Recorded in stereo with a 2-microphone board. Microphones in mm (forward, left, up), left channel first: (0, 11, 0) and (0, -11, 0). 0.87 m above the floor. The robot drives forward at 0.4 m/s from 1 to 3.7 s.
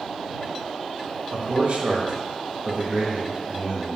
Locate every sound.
1.3 s a man speaking: 55° right (ahead or behind), 0.7 m; by 4.0 s 35° right (ahead or behind), 0.9 m